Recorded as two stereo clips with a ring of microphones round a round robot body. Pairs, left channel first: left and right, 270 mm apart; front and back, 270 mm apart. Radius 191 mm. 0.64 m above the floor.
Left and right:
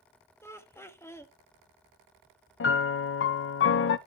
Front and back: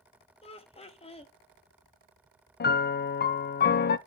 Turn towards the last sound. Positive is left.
turn(degrees=50)